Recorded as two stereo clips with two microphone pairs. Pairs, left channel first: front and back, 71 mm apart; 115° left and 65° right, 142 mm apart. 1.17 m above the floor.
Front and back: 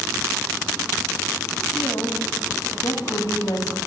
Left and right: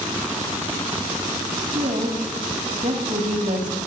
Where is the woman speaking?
30° right, 2.5 m.